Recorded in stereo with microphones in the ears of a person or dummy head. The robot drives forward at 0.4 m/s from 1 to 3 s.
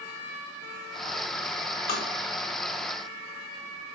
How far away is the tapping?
About 0.6 m.